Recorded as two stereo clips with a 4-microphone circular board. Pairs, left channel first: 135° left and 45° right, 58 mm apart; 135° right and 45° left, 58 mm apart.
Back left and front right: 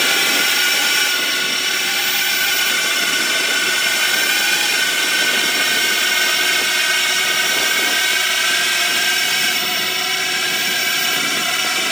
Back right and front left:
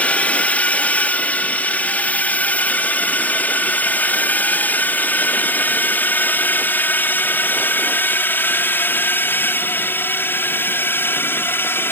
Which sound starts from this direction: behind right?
A drone, at 0.0 s.